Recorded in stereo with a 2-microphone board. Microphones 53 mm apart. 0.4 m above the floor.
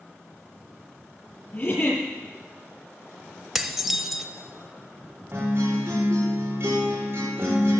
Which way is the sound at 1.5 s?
35° left (ahead or behind).